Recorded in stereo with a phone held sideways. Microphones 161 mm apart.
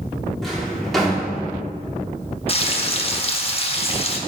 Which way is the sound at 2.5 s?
40° left (ahead or behind).